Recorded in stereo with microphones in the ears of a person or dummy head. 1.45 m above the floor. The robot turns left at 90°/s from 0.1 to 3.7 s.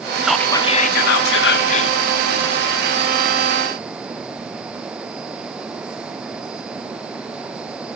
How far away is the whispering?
About 1.3 m.